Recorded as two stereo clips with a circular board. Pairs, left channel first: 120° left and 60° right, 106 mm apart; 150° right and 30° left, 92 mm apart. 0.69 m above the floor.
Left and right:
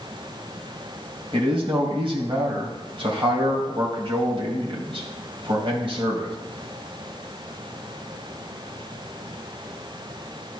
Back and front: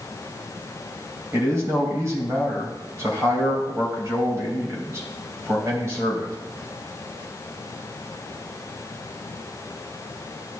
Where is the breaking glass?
No breaking glass in this recording.